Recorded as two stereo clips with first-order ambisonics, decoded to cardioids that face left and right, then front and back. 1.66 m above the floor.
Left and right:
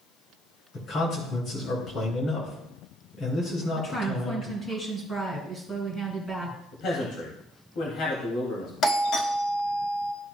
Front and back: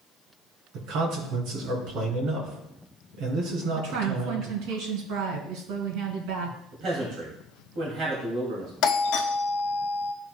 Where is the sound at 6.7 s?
140° left, 2.5 m.